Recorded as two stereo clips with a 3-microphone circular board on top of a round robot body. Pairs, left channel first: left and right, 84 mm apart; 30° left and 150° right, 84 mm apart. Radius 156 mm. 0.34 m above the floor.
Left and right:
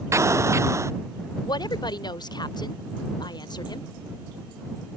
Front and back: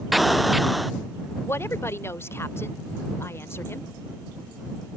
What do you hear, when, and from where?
0.1 s an explosion: 60° right
1.4 s a woman speaking: 85° left